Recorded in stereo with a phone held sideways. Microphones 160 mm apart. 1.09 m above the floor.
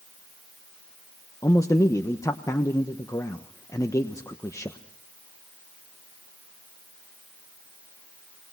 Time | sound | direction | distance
1.4 | a man speaking | 20° left (ahead or behind) | 1.1 m